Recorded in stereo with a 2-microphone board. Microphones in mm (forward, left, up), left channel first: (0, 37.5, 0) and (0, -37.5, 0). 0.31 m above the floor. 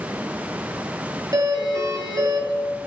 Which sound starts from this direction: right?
A doorbell, at 1.3 s.